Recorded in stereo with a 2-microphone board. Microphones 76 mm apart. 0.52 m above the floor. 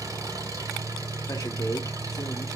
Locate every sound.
0.0 s an engine running: 45° right (ahead or behind), 2 m
1.3 s a man speaking: 45° left (ahead or behind), 1.1 m